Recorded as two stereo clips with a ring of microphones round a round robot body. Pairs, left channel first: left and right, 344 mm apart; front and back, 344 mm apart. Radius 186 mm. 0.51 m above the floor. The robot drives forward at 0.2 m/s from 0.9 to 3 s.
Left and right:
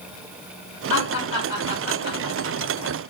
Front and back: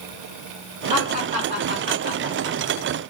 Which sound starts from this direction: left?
Laughter, at 0.9 s.